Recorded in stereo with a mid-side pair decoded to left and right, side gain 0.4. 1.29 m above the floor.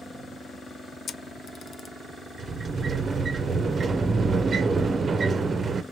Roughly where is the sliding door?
Ahead right.